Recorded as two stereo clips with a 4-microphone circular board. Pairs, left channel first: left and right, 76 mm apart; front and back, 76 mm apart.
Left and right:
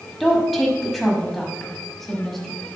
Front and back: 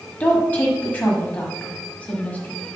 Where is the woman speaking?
5° left, 1.6 m.